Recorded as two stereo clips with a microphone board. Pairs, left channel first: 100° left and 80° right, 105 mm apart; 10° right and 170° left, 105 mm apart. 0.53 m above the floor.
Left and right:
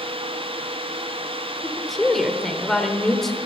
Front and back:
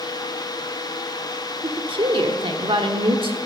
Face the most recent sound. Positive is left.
turn(degrees=-175)